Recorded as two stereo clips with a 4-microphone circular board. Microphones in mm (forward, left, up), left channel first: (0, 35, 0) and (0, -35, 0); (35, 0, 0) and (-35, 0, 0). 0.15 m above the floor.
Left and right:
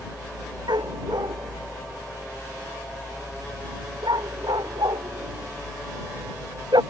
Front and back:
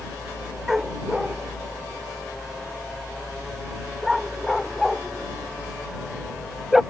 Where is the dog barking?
95° right.